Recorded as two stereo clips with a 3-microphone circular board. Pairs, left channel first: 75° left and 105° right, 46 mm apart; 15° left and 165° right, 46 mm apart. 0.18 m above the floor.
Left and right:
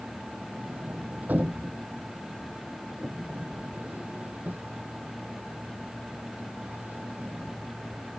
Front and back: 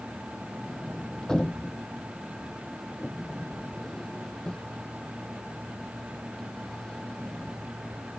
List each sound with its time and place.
0.6 s a sliding door: 55° right